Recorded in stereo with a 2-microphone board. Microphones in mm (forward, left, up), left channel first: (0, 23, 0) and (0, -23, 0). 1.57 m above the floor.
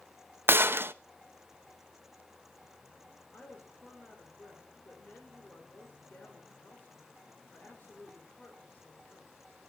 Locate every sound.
0.5 s a gunshot: 50° right (ahead or behind), 0.7 m
3.3 s a woman speaking: 40° left (ahead or behind), 4.5 m